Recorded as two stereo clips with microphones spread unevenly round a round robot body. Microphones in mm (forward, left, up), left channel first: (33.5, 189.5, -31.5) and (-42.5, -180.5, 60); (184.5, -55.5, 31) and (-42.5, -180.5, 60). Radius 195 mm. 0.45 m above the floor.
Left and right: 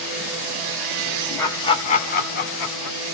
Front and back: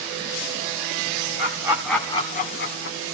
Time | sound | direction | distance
1.4 | laughter | 145° left | 1.2 m